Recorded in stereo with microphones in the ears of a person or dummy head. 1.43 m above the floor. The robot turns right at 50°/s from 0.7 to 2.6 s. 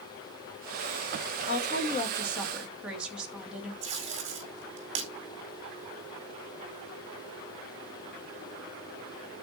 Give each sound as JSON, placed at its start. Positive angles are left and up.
{"t": 1.5, "sound": "a woman speaking", "azimuth_deg": 125, "distance_m": 2.5}
{"t": 3.8, "sound": "tape being pulled", "side_deg": -25, "distance_m": 3.5}